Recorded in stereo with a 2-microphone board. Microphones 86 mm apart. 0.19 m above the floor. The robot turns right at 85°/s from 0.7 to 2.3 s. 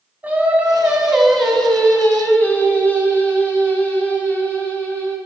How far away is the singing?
About 1.2 m.